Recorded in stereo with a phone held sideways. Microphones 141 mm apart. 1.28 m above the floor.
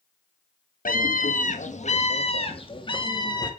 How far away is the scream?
About 1.7 m.